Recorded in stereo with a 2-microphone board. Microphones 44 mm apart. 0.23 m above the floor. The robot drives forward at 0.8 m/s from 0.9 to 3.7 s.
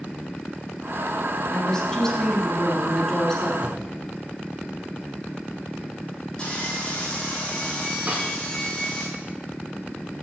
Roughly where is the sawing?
Left.